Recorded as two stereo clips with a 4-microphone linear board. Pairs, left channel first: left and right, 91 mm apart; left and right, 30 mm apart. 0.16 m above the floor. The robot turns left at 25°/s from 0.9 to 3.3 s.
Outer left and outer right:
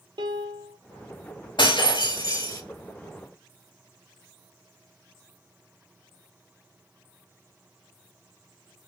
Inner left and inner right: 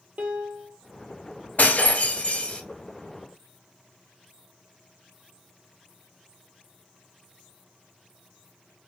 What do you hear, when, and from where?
0.2 s a piano: 55° right (ahead or behind), 0.8 m
1.6 s breaking glass: 65° left (ahead or behind), 0.8 m; by 2.6 s 40° left (ahead or behind), 0.8 m